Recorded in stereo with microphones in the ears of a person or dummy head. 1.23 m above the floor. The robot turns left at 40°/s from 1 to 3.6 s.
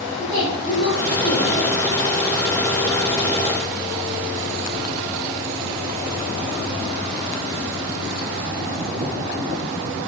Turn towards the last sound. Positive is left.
turn(degrees=-20)